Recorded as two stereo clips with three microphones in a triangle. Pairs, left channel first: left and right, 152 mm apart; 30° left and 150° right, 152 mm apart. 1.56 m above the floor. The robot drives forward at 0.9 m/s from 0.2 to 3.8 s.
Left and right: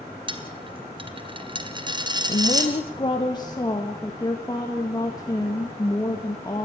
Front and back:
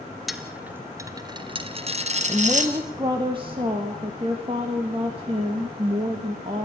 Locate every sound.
0.3 s a dropped coin: 60° right, 1.8 m; by 2.7 s 150° right, 2.5 m
2.3 s a woman speaking: 135° left, 1.3 m; by 6.6 s 155° left, 2.5 m